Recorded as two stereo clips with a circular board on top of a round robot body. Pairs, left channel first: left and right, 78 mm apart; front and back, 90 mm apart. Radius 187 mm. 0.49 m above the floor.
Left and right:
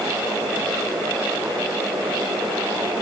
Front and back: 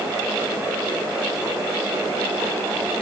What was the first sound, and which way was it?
Only background noise.